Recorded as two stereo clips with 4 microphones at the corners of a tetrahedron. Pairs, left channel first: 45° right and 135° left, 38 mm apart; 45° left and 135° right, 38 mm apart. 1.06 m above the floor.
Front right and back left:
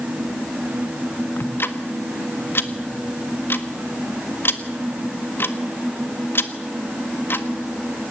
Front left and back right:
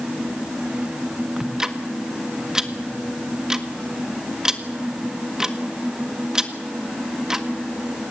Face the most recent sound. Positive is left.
turn(degrees=-60)